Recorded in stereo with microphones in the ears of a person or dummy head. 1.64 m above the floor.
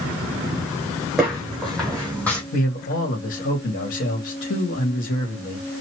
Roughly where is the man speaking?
Left.